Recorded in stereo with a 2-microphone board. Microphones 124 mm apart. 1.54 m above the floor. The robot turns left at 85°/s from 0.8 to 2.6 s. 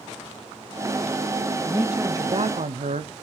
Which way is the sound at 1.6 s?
10° left.